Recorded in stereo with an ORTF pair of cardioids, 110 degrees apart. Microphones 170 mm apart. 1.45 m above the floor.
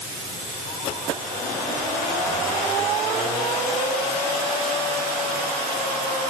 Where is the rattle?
I don't hear a rattle.